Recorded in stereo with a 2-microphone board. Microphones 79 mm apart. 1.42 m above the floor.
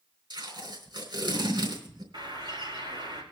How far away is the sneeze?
I don't hear a sneeze.